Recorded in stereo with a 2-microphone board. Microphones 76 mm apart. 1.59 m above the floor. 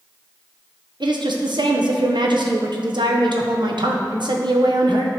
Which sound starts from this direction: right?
A woman speaking, at 1.0 s.